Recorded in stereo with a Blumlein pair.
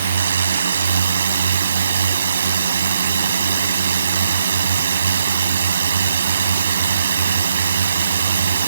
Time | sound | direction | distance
0.0 | a drone | 65° right | ?